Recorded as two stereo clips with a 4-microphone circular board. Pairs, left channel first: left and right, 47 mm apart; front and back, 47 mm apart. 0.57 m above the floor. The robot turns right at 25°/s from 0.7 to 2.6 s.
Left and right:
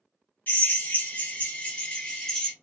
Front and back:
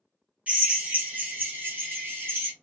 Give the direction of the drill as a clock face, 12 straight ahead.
8 o'clock.